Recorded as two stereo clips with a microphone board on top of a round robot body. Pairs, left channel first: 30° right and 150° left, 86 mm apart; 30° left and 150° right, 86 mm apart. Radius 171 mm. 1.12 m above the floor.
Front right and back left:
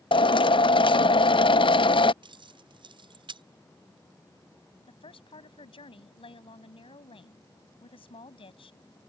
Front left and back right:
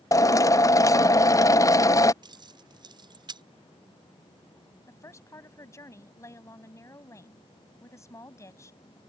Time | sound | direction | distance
0.1 | a drill | 20° right | ?
2.2 | keys jangling | 175° left | ?
4.9 | a woman speaking | 25° right | ?